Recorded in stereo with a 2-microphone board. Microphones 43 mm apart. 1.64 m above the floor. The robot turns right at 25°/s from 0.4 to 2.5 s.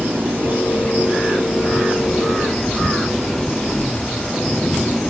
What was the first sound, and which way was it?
An engine running, 50° right.